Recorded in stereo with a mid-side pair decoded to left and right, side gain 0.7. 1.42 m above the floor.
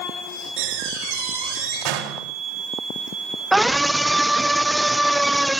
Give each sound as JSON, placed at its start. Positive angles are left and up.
{"t": 0.6, "sound": "a door slam", "azimuth_deg": -70, "distance_m": 4.5}
{"t": 3.5, "sound": "a scream", "azimuth_deg": -10, "distance_m": 0.7}